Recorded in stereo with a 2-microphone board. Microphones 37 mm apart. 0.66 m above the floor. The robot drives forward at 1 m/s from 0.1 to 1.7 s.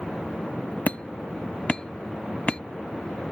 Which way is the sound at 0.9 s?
45° left (ahead or behind).